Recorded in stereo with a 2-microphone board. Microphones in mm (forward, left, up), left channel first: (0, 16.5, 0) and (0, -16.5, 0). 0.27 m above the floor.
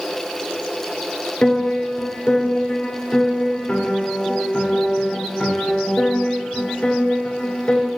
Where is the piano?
35° left (ahead or behind), 1.8 m.